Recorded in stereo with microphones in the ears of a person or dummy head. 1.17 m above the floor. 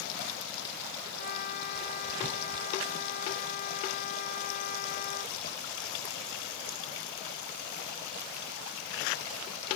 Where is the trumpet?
50° left (ahead or behind).